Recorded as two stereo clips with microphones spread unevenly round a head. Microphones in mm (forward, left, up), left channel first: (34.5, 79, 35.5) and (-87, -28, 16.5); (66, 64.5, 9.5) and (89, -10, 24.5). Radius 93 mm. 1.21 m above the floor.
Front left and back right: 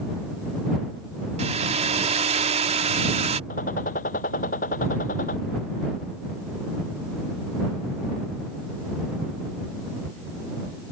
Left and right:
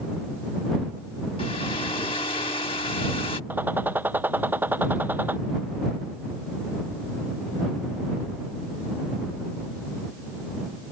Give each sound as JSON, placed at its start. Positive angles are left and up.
{"t": 1.4, "sound": "a hair dryer", "azimuth_deg": 170}
{"t": 3.5, "sound": "a gunshot", "azimuth_deg": -10}